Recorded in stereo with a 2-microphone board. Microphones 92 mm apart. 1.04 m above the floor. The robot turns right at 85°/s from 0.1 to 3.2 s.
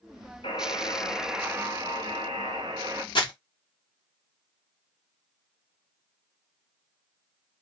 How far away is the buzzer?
About 0.7 m.